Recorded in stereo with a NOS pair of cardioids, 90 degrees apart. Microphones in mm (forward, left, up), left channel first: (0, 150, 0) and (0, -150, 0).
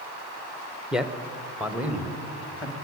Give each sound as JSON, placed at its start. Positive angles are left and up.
{"t": 0.9, "sound": "a man speaking", "azimuth_deg": -5, "distance_m": 1.0}